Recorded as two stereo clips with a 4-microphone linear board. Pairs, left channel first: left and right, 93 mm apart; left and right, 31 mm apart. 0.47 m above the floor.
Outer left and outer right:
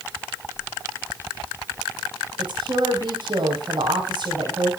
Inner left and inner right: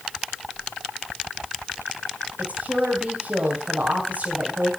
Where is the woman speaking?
55° right (ahead or behind), 3 m.